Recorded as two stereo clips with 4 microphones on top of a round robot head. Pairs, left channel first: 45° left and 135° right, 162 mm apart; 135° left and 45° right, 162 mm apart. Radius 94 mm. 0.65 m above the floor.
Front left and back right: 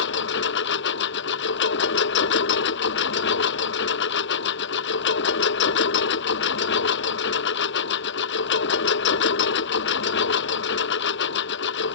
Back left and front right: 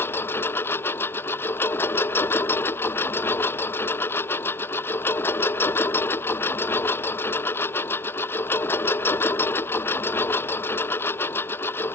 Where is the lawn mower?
60° left.